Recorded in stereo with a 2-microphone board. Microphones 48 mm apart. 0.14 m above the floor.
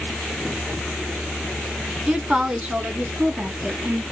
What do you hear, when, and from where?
2.1 s a woman speaking: 20° right (ahead or behind), 1.2 m; by 4.0 s 35° right (ahead or behind), 1.8 m